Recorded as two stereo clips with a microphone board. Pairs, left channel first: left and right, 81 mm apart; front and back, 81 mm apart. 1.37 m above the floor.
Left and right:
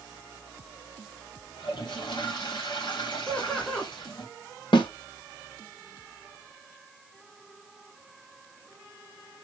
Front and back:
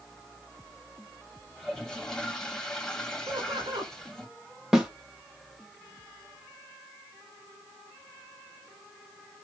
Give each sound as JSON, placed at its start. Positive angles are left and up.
{"t": 1.6, "sound": "a toilet flushing", "azimuth_deg": 85, "distance_m": 1.9}
{"t": 3.3, "sound": "laughter", "azimuth_deg": 170, "distance_m": 2.0}
{"t": 4.7, "sound": "a snare drum", "azimuth_deg": 100, "distance_m": 1.5}